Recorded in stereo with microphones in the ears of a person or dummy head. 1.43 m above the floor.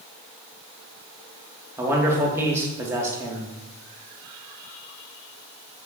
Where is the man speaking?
15° right (ahead or behind), 0.6 m.